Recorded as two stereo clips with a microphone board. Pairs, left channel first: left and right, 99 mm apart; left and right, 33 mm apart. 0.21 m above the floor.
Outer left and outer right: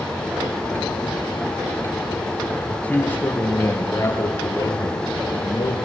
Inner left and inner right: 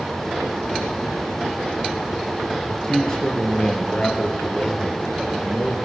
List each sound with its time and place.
2.7 s a man speaking: 15° left (ahead or behind), 5 m; by 5.8 s 45° left (ahead or behind), 5 m